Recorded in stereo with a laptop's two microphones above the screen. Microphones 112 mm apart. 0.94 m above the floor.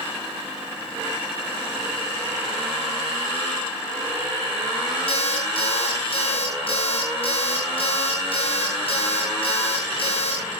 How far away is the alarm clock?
About 9.5 m.